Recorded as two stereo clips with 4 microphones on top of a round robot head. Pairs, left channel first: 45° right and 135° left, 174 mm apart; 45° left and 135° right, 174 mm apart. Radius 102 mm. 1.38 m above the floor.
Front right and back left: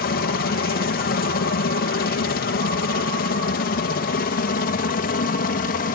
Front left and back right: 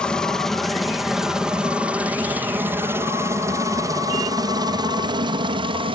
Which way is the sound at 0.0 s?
40° right.